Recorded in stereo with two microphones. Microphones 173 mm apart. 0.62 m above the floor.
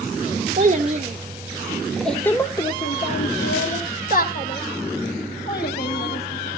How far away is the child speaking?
About 1.3 m.